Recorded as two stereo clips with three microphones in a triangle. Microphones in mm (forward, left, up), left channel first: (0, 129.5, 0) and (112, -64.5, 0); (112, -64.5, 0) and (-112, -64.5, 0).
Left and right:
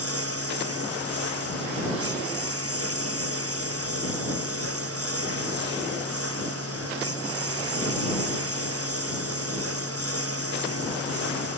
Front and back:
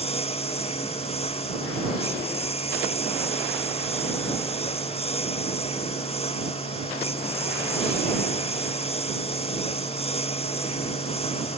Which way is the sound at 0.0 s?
65° right.